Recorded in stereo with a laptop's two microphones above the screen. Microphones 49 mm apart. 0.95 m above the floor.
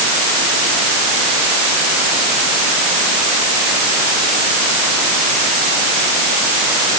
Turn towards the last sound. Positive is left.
No sound to turn to.